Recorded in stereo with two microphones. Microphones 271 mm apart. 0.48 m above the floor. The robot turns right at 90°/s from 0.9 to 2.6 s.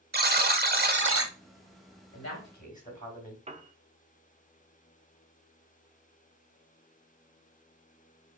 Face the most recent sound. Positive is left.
turn(degrees=-25)  # may be behind; listen again after turning